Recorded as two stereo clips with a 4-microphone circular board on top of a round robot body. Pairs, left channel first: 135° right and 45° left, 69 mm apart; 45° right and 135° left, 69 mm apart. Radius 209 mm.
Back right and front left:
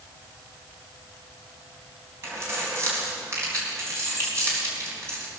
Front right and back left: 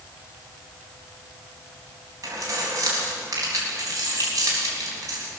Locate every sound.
2.2 s keys jangling: 95° left, 3.5 m